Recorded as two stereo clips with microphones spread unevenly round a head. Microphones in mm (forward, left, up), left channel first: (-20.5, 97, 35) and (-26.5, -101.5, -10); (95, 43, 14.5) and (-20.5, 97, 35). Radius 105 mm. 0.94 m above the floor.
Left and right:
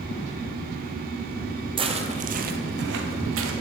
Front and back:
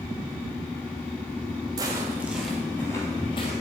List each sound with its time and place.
1.8 s footsteps: 160° right, 1.2 m; by 3.5 s 85° right, 1.3 m